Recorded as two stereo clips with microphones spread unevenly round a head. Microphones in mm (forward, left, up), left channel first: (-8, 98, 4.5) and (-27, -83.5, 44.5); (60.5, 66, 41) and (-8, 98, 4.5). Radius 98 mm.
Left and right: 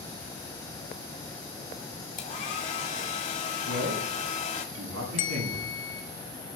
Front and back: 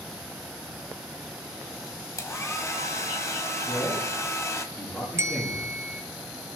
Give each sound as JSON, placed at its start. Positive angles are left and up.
{"t": 2.2, "sound": "a hair dryer", "azimuth_deg": 35, "distance_m": 2.5}
{"t": 3.6, "sound": "a man speaking", "azimuth_deg": -105, "distance_m": 7.0}
{"t": 5.2, "sound": "a bell", "azimuth_deg": 90, "distance_m": 1.8}